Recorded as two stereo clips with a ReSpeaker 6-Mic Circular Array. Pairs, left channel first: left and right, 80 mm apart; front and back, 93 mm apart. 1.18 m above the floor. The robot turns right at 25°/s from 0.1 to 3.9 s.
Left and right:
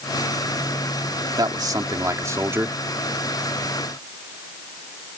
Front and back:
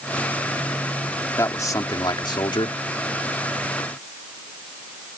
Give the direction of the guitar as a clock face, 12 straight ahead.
I don't hear a guitar.